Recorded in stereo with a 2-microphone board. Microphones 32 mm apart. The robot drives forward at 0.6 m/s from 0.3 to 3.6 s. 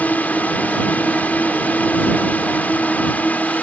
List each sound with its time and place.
0.0 s a drone: 60° left (ahead or behind)